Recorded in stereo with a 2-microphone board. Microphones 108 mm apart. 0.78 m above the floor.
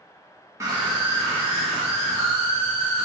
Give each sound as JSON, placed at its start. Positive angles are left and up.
{"t": 0.6, "sound": "a scream", "side_deg": -30, "distance_m": 0.8}